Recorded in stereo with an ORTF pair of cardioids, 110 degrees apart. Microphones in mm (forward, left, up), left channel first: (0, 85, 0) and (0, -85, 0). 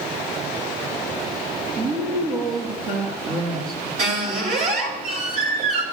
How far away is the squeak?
About 2.5 m.